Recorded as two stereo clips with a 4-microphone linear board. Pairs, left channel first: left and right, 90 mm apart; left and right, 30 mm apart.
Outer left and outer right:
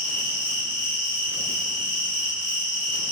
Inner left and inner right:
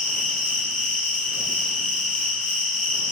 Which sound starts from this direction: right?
An insect, at 0.0 s.